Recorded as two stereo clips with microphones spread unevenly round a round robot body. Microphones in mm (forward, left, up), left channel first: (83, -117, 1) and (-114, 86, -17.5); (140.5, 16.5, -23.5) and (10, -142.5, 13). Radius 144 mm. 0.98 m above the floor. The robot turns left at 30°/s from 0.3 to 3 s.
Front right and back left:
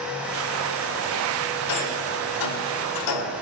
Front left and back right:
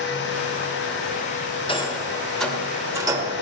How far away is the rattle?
About 2.5 m.